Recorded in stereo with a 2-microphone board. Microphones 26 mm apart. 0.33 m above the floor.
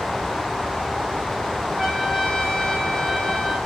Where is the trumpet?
5° right (ahead or behind), 3 m.